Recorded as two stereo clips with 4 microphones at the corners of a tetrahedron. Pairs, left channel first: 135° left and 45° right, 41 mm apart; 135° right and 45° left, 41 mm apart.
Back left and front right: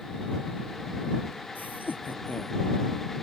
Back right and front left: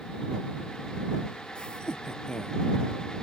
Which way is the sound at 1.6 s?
160° left.